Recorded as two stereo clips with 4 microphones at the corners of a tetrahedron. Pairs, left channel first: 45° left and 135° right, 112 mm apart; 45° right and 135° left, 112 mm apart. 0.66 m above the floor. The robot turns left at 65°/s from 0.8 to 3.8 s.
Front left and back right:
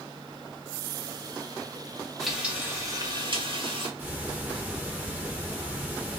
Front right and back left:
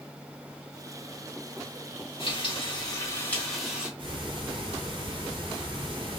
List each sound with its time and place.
2.2 s frying: 40° right, 1.0 m; by 3.9 s 145° right, 1.0 m
4.0 s ticking: 160° left, 1.1 m